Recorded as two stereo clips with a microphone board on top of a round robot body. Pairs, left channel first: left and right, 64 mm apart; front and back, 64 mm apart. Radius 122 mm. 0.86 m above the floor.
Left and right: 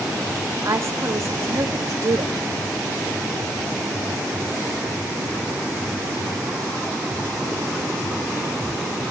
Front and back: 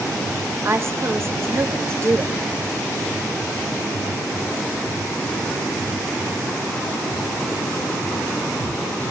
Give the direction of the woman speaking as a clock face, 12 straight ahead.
4 o'clock.